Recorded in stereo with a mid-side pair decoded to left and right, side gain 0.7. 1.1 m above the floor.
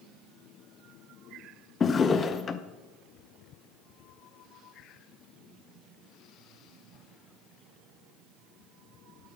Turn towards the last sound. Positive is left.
turn(degrees=30)